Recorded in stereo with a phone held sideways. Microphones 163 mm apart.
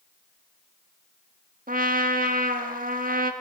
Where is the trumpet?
65° right (ahead or behind), 1.4 m.